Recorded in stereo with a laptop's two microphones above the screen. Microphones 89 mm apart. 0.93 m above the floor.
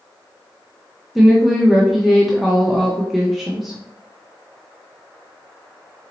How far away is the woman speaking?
About 0.8 m.